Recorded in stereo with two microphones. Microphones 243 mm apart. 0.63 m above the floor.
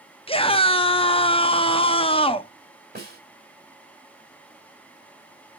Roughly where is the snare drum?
Right.